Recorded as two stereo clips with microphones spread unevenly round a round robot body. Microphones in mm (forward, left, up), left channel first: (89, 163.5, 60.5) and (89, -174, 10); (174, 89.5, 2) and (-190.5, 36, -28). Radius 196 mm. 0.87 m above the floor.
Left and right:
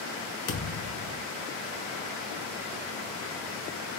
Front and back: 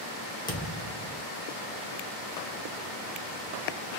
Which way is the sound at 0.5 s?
85° left.